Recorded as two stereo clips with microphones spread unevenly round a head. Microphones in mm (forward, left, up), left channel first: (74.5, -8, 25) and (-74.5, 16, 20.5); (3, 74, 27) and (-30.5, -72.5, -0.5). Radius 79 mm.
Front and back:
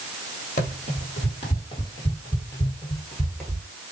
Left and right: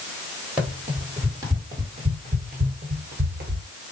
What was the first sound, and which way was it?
Running footsteps, 10° right.